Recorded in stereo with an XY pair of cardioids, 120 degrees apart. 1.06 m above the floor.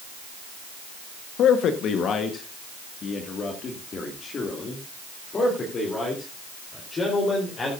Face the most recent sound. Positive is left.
turn(degrees=30)